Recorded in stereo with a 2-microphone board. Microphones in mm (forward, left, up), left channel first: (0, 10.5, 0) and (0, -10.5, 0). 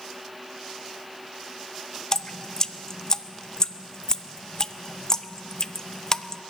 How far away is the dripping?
About 0.6 m.